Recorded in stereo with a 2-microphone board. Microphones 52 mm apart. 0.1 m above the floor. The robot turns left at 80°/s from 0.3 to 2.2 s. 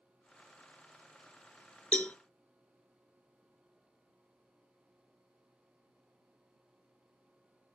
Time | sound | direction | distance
1.9 | a cowbell | 25° left (ahead or behind) | 0.8 m